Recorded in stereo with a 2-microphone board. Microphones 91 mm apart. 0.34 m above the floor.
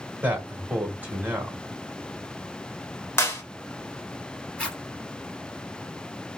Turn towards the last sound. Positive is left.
turn(degrees=10)  # may be behind; listen again after turning